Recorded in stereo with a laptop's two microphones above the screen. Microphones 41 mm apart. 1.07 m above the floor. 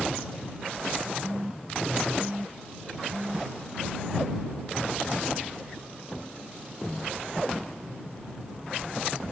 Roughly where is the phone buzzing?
Right.